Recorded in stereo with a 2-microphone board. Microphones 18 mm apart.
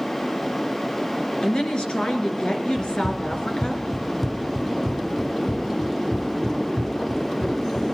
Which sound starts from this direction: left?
A woman speaking, at 1.4 s.